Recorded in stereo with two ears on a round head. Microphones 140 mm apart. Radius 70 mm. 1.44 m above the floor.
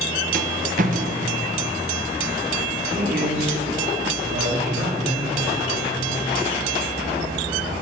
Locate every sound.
0.3 s a rattle: 55° right (ahead or behind), 1.0 m
3.0 s a man speaking: 60° right (ahead or behind), 3.5 m